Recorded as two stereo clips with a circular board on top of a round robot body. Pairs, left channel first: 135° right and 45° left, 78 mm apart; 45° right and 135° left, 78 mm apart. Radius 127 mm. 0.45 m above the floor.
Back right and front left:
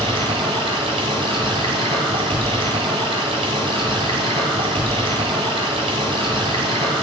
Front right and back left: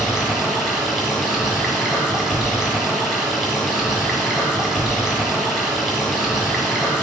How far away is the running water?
About 1.0 m.